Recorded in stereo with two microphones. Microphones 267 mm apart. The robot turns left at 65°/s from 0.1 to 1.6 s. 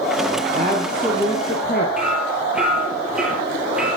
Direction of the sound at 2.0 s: 5° right (ahead or behind).